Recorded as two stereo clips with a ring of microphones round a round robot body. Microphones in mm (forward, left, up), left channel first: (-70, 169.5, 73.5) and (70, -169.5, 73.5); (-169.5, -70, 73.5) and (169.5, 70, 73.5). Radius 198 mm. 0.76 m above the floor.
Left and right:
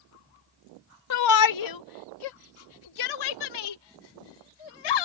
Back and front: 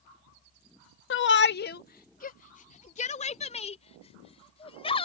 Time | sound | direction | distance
1.1 | a shout | 150° left | ?